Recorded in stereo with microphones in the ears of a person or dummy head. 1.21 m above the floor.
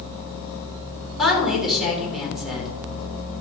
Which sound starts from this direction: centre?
A woman speaking, at 1.2 s.